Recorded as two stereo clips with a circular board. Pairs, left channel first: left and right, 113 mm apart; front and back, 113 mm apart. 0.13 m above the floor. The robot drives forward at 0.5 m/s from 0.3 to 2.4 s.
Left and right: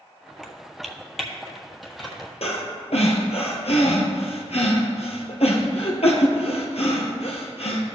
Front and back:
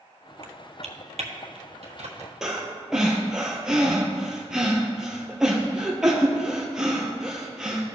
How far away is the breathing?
About 1.5 m.